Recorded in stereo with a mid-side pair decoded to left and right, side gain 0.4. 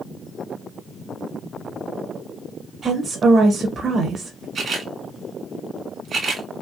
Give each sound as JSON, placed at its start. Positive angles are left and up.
{"t": 2.8, "sound": "a woman speaking", "azimuth_deg": -55, "distance_m": 1.0}
{"t": 4.5, "sound": "a camera shutter", "azimuth_deg": -55, "distance_m": 1.5}